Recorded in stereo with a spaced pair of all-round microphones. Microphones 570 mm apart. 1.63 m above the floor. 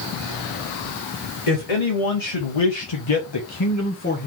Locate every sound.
1.5 s a man speaking: 80° left, 1.2 m; by 4.3 s 15° left (ahead or behind), 0.9 m